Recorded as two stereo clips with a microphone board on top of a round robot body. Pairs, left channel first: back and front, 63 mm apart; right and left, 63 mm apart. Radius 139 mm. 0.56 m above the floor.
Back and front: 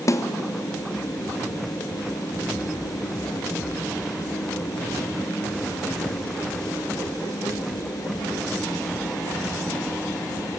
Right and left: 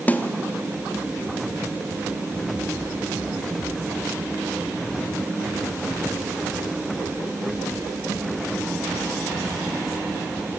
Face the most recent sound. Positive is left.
turn(degrees=-150)